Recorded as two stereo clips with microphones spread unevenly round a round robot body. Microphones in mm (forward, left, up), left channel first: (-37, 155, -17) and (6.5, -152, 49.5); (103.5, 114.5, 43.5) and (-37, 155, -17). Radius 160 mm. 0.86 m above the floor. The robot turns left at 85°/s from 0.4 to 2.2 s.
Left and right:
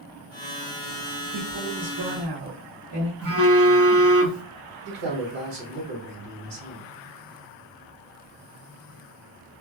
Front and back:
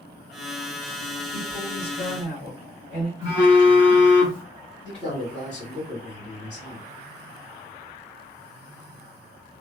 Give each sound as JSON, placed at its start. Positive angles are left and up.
{"t": 1.3, "sound": "a woman speaking", "azimuth_deg": 5, "distance_m": 2.0}
{"t": 3.2, "sound": "a phone buzzing", "azimuth_deg": -30, "distance_m": 1.2}
{"t": 4.8, "sound": "a man speaking", "azimuth_deg": -55, "distance_m": 1.9}